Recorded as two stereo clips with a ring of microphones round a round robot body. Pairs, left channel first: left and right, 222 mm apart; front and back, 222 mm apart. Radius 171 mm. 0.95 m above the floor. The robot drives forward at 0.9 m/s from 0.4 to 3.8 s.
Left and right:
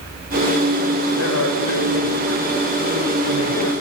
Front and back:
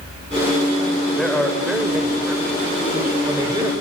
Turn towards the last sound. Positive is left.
turn(degrees=110)